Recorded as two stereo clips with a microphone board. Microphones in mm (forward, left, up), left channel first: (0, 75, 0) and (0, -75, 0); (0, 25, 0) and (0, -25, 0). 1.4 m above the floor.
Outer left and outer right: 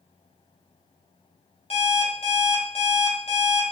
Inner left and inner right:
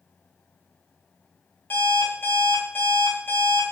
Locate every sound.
1.7 s an alarm clock: 45° left (ahead or behind), 0.7 m